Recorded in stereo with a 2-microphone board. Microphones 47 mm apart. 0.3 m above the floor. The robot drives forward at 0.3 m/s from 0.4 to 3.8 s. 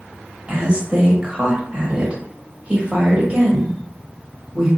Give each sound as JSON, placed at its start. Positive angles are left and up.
{"t": 0.5, "sound": "a woman speaking", "side_deg": -20, "distance_m": 1.3}